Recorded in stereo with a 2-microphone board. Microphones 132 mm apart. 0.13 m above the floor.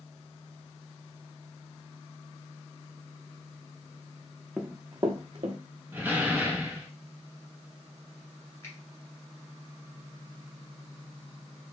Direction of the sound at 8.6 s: 25° left (ahead or behind).